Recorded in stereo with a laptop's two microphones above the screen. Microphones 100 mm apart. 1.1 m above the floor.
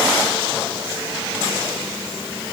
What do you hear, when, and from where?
Only background noise.